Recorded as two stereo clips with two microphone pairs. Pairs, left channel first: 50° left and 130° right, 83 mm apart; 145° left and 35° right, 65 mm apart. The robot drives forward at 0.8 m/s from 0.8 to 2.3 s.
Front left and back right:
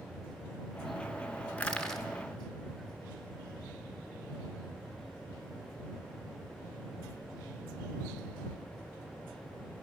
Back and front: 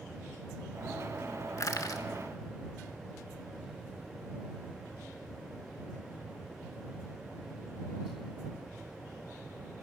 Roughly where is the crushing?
Behind left.